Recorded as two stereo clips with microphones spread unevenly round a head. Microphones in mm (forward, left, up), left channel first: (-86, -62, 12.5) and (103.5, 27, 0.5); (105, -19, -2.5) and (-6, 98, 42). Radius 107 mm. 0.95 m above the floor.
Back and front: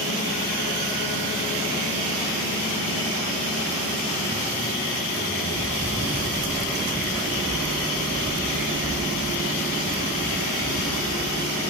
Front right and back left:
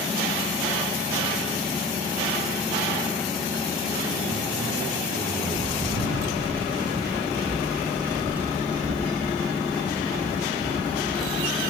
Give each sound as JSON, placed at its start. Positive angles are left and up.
{"t": 5.5, "sound": "footsteps", "azimuth_deg": 120, "distance_m": 3.5}